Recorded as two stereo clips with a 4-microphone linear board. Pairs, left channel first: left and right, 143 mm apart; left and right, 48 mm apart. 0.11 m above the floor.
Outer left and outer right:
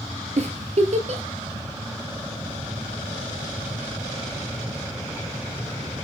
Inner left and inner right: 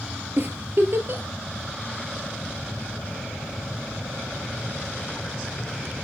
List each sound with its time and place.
0.4 s a giggle: 55° right (ahead or behind), 1.2 m